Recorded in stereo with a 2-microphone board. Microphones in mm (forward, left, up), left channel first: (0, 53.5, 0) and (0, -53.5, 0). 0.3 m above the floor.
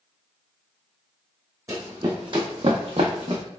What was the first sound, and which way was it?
Running footsteps, 30° right (ahead or behind).